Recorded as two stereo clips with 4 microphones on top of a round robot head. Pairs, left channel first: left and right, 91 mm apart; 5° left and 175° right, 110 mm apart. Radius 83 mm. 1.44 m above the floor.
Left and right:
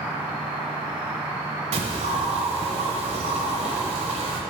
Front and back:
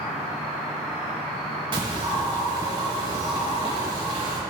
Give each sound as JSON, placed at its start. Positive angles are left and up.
{"t": 0.0, "sound": "an insect", "azimuth_deg": -10, "distance_m": 1.8}
{"t": 1.7, "sound": "a bird", "azimuth_deg": -115, "distance_m": 0.8}